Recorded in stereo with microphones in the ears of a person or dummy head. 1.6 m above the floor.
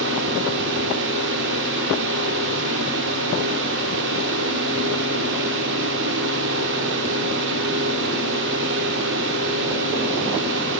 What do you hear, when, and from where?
0.0 s a fan: 60° right (ahead or behind), 5.5 m